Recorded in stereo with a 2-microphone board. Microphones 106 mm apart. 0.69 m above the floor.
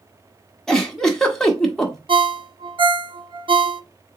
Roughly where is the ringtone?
Right.